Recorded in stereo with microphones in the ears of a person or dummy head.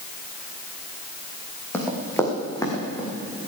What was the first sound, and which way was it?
Running footsteps, 10° left (ahead or behind).